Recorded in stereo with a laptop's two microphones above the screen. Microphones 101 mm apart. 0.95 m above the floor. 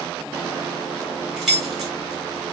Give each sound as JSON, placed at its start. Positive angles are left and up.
{"t": 1.4, "sound": "keys jangling", "side_deg": -5, "distance_m": 0.9}